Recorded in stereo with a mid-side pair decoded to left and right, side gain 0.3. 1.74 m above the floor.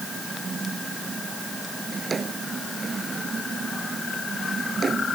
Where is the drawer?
55° right.